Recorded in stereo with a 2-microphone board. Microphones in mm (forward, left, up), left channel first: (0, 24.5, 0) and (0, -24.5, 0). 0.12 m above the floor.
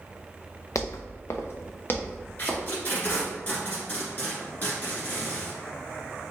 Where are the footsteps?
85° left, 0.6 m; by 3.2 s 25° left (ahead or behind), 2 m.